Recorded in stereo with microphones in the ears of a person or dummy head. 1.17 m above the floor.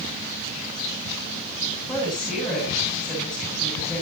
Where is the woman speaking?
5° left (ahead or behind), 9 m.